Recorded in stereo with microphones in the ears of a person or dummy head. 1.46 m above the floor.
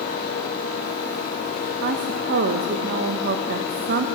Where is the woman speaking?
60° right (ahead or behind), 0.6 m.